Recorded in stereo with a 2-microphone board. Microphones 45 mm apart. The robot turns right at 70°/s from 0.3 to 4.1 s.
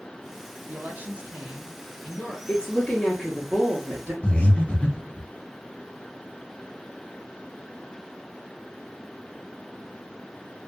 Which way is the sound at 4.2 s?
30° left (ahead or behind).